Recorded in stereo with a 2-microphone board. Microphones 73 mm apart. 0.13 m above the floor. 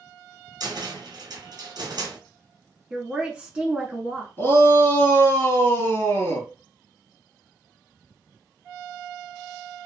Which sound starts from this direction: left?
A shout, at 4.4 s.